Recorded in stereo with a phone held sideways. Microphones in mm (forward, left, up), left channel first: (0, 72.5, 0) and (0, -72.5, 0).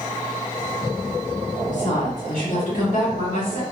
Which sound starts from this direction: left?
A woman speaking, at 1.7 s.